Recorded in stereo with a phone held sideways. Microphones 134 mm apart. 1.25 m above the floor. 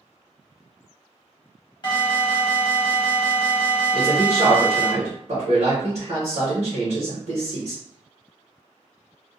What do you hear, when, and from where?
1.8 s an alarm: 35° left (ahead or behind), 0.9 m
3.9 s a man speaking: 65° right (ahead or behind), 1.2 m